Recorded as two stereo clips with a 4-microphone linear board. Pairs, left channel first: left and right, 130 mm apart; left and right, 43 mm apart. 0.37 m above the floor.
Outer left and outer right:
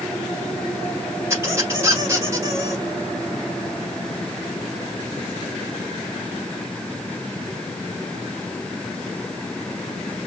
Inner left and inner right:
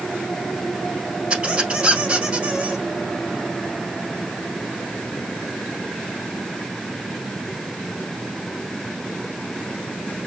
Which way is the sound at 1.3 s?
20° right (ahead or behind).